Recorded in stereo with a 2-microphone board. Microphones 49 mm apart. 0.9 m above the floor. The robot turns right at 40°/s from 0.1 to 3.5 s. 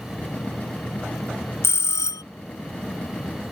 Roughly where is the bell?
Left.